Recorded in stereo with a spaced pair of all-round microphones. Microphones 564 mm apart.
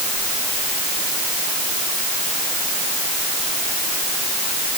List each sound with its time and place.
Only background noise.